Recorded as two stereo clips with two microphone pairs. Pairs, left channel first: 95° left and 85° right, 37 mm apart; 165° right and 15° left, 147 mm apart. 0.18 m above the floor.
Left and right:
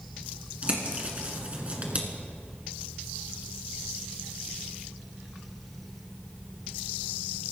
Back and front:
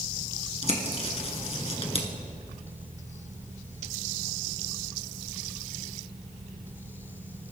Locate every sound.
0.6 s a bird: 130° right, 2 m